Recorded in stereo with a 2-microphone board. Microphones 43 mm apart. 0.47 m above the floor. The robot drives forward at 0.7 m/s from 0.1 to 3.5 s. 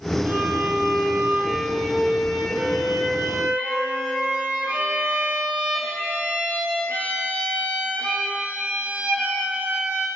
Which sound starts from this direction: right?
A violin, at 0.2 s.